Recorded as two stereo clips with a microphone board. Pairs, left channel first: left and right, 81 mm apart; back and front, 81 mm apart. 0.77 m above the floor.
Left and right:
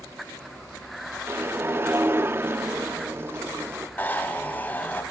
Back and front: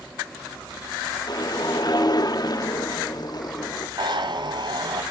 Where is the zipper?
25° left, 1.9 m.